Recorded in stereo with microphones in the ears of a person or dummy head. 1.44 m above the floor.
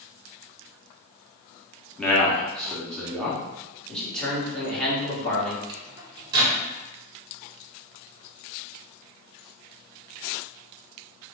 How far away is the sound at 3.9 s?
About 1.4 m.